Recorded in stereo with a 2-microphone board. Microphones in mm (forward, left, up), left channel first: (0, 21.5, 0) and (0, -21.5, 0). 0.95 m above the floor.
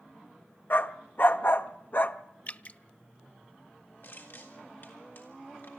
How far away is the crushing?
About 3.5 m.